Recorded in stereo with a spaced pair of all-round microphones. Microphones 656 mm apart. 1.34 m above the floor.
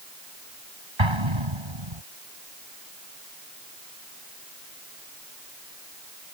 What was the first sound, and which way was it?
An explosion, 40° right (ahead or behind).